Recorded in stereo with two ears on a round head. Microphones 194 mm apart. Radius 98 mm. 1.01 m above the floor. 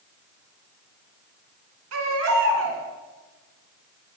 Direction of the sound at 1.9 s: 65° right (ahead or behind).